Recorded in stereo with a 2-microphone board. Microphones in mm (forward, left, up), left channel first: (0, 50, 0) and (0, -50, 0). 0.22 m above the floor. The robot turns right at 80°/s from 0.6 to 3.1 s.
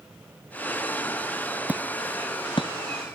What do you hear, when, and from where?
1.7 s hammering: 15° right (ahead or behind); by 2.7 s 65° left (ahead or behind)